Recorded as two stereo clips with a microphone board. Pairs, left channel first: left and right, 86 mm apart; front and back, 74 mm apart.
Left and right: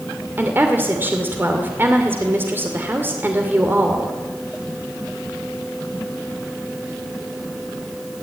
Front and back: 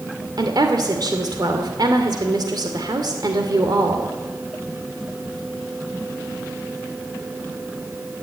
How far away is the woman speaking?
About 2.5 m.